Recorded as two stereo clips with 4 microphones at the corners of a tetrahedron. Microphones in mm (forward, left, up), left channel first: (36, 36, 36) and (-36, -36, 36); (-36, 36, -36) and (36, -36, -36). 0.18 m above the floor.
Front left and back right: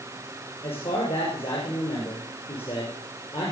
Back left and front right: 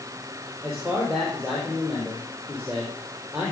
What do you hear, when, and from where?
0.6 s a man speaking: 40° left, 5 m